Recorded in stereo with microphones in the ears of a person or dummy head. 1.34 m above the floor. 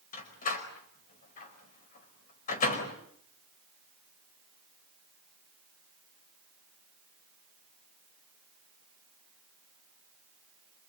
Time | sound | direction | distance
0.1 | a door slam | 50° left (ahead or behind) | 3.5 m